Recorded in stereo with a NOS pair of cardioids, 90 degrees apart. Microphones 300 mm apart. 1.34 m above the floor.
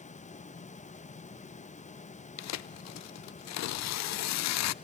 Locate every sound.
0.0 s a fan: 25° left, 1.1 m
2.4 s tearing paper: 65° left, 0.5 m